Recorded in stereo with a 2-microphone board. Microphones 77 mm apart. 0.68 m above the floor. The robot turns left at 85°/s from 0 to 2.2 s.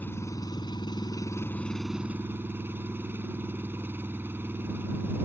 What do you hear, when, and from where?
0.0 s an engine running: 160° left; by 5.2 s 30° right